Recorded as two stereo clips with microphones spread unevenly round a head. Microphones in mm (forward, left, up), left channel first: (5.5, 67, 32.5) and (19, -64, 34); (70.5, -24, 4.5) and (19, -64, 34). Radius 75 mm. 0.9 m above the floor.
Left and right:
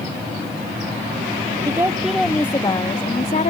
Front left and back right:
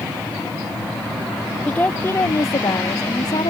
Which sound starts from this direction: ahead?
A woman speaking, at 1.7 s.